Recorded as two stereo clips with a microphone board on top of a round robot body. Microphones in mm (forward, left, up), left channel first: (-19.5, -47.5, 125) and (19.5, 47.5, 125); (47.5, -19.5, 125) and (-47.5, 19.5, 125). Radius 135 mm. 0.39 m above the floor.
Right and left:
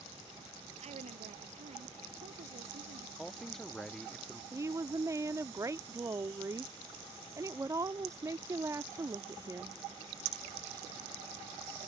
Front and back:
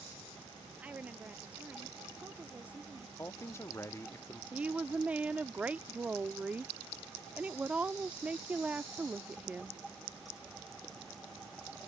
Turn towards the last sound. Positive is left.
turn(degrees=90)